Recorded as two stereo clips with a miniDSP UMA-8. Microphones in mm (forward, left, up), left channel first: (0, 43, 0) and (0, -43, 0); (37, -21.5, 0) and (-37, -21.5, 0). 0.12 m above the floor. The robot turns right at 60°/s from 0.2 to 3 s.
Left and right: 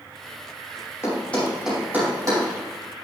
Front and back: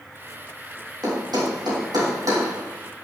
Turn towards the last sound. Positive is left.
turn(degrees=-95)